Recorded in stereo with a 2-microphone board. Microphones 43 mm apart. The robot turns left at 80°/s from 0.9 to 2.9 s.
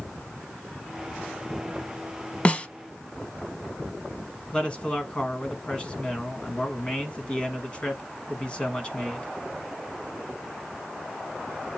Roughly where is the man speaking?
Left.